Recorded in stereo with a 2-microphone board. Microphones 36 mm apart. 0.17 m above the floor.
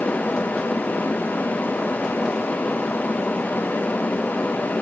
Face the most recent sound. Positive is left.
No sound to turn to.